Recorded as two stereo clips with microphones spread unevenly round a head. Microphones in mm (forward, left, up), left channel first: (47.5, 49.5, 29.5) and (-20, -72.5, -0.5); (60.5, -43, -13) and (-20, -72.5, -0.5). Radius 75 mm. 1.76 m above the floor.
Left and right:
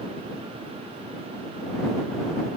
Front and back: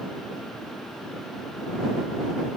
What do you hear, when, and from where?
Only background noise.